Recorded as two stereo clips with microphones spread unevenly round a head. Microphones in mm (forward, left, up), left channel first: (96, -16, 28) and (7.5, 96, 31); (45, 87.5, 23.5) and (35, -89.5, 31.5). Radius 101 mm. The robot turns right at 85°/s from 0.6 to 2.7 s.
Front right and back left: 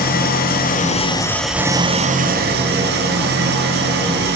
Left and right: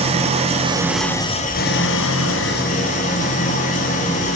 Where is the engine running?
35° right, 0.8 m; by 4.4 s 145° left, 0.8 m.